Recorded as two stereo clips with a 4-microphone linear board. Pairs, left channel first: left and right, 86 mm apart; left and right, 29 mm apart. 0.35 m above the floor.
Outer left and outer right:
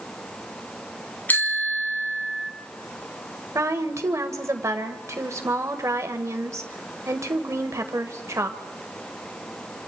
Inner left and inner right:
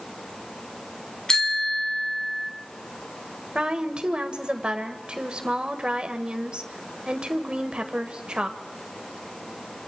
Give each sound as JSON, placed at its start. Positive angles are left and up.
{"t": 1.3, "sound": "a bicycle bell", "side_deg": 25, "distance_m": 2.0}
{"t": 3.5, "sound": "a woman speaking", "side_deg": -35, "distance_m": 1.6}